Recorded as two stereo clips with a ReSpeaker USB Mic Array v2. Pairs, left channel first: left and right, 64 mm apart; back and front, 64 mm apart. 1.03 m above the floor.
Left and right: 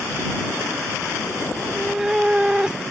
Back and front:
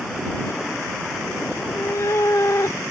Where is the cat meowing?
Straight behind; by 2.8 s 165° right.